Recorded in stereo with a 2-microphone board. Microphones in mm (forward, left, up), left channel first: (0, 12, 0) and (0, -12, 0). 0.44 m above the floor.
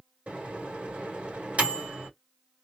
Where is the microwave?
60° right (ahead or behind), 2 m.